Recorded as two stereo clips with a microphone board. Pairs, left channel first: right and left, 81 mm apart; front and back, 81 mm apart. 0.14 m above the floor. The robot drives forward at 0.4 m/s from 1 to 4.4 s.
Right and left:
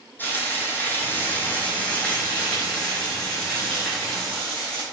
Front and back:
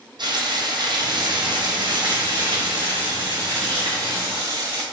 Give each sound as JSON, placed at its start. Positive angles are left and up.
{"t": 0.2, "sound": "frying", "azimuth_deg": -155, "distance_m": 1.0}